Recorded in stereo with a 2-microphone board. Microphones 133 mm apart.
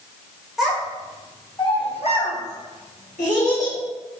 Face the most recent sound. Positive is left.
turn(degrees=75)  # may be behind; listen again after turning